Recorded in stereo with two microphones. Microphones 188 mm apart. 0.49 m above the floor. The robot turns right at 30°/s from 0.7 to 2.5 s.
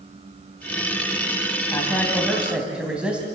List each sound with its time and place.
1.7 s a man speaking: 20° left (ahead or behind), 2.5 m; by 3.2 s 5° right (ahead or behind), 2.5 m